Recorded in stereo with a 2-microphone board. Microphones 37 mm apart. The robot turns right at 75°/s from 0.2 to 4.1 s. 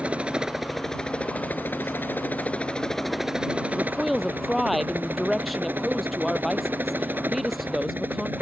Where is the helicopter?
40° right; by 8.4 s 105° right.